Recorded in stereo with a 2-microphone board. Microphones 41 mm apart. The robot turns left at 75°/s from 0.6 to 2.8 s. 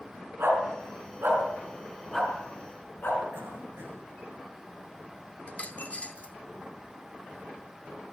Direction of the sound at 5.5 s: 30° left (ahead or behind).